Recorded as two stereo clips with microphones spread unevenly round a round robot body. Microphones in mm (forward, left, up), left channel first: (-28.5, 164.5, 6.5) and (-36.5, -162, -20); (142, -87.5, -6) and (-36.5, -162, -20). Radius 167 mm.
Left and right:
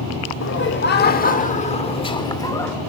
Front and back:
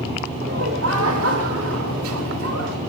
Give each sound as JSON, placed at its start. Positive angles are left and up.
{"t": 0.4, "sound": "laughter", "azimuth_deg": 145, "distance_m": 2.5}